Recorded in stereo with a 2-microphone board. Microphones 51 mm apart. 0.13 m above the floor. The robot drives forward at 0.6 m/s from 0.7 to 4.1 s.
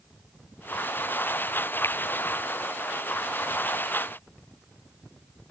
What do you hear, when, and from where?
1.8 s a finger snap: 55° left (ahead or behind)